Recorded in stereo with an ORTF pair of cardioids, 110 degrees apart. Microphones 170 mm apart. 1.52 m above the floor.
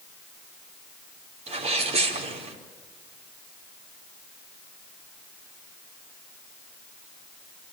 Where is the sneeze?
40° right, 4.5 m.